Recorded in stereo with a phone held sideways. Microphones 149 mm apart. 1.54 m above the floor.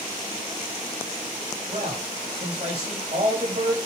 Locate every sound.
1.7 s a man speaking: 45° right (ahead or behind), 8 m